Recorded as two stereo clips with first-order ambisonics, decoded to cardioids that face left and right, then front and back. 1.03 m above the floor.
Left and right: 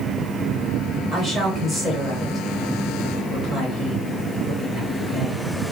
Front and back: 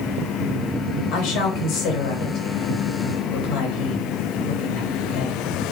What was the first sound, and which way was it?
A woman speaking, straight ahead.